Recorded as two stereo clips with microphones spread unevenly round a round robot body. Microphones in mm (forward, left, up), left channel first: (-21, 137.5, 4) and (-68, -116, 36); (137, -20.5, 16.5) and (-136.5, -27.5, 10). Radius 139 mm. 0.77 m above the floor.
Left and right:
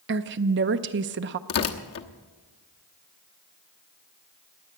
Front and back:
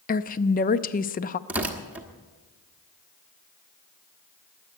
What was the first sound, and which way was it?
A woman speaking, 55° right.